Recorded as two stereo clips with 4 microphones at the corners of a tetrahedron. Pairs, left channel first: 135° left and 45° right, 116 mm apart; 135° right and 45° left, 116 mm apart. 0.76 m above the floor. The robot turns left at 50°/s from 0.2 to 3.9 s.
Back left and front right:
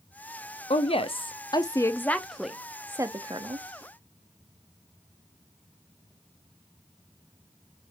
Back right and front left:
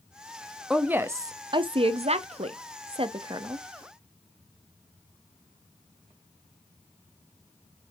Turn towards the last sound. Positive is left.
turn(degrees=-30)